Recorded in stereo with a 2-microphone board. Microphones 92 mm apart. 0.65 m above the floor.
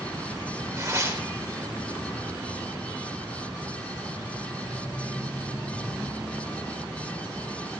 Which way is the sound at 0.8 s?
35° right (ahead or behind).